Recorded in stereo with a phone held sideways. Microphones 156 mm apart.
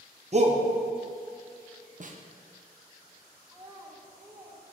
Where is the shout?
45° right (ahead or behind), 0.7 m.